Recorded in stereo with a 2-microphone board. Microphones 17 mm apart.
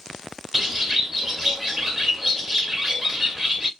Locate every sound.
0.5 s a bird: 25° right (ahead or behind), 0.9 m